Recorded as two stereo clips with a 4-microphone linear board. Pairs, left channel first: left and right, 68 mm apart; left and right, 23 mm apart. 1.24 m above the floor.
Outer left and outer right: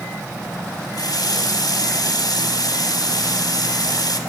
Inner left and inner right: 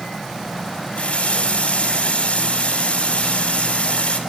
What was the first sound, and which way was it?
A running tap, 75° left (ahead or behind).